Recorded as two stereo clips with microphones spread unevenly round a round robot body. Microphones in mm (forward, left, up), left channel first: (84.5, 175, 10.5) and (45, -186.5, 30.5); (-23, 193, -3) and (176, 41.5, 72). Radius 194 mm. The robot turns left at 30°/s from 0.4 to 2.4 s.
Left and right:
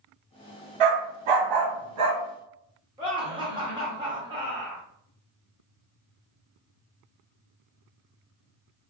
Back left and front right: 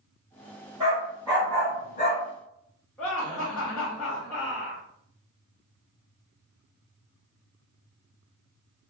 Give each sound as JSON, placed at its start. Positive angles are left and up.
{"t": 0.8, "sound": "a dog barking", "azimuth_deg": -115, "distance_m": 0.7}
{"t": 3.0, "sound": "laughter", "azimuth_deg": -170, "distance_m": 0.7}